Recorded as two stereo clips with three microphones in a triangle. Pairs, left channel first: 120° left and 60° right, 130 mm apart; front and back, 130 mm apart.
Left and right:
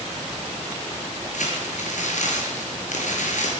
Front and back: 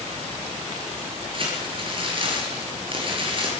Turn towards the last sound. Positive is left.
turn(degrees=135)